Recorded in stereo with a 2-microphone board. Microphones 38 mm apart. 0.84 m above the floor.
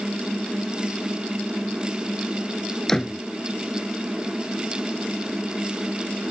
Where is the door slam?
15° left (ahead or behind).